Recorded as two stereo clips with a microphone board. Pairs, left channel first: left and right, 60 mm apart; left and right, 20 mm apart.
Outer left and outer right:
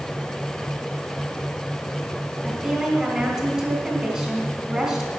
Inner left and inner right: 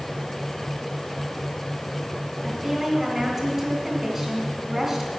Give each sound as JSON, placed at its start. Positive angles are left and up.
{"t": 2.4, "sound": "a woman speaking", "side_deg": -20, "distance_m": 2.5}